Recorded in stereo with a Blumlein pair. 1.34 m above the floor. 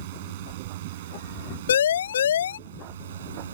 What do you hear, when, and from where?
0.0 s a drone: 55° right; by 3.5 s 60° right
1.7 s a siren: 65° left